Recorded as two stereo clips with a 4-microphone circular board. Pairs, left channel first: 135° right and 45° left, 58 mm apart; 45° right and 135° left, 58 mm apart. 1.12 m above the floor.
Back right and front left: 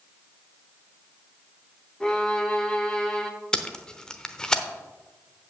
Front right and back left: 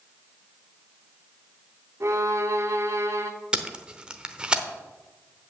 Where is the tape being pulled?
175° left, 0.8 m.